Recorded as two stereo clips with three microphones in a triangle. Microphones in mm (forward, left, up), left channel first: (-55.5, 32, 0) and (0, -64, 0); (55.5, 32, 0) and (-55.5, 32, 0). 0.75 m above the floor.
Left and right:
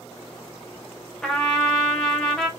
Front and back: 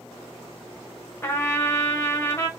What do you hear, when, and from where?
1.2 s a trumpet: 40° left, 0.6 m